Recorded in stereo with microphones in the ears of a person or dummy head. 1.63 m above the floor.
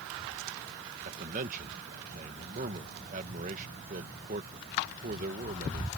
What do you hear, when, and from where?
1.0 s a man speaking: 45° right (ahead or behind)